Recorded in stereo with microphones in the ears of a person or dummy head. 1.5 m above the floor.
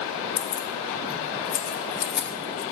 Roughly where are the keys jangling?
Left.